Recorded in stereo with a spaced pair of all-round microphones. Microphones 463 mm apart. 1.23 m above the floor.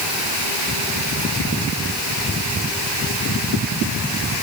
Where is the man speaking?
I don't hear a man speaking.